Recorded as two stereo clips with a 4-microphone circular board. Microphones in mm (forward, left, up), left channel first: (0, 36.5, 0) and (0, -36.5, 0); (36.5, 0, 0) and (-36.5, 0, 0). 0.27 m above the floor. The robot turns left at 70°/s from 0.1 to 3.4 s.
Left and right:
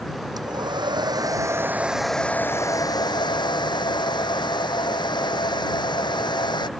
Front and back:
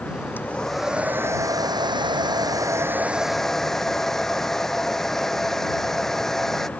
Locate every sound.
0.4 s a hair dryer: 60° right; by 6.7 s 85° left